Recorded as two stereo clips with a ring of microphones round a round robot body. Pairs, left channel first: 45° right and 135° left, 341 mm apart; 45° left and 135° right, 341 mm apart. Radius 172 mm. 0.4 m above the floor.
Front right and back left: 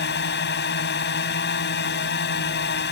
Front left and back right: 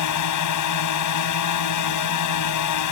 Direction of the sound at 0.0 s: 15° left.